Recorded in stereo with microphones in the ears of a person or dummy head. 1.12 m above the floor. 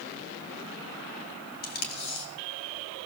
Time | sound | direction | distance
1.6 | tape being pulled | 45° left (ahead or behind) | 1.9 m